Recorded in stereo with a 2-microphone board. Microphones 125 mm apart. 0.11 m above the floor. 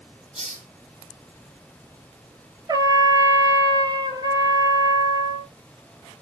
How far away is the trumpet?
About 0.6 m.